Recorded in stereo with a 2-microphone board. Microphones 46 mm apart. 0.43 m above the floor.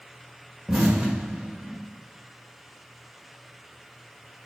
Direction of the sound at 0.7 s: 10° right (ahead or behind).